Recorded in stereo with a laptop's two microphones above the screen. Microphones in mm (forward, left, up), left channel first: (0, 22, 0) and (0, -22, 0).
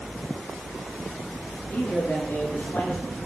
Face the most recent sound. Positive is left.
turn(degrees=55)  # may be behind; listen again after turning